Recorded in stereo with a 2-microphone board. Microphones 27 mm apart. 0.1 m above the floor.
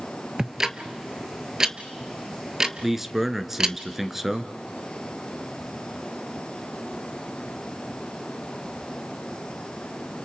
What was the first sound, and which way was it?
Ticking, 20° right (ahead or behind).